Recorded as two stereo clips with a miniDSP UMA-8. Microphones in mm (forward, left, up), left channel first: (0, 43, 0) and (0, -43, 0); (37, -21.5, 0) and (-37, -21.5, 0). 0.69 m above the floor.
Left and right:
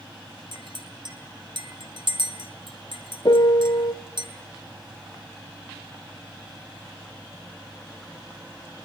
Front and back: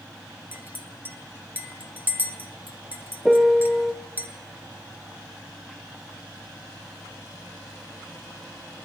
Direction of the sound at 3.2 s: 95° left.